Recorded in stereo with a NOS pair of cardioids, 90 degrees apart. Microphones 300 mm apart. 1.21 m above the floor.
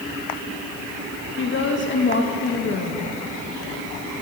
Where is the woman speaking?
40° left, 1.4 m.